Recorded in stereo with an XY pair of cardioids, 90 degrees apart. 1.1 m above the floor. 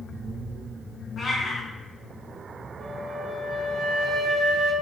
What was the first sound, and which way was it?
A cat meowing, 50° left.